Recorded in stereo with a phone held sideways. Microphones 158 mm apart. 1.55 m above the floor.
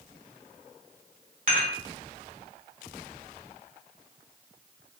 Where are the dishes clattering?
50° right (ahead or behind), 3 m.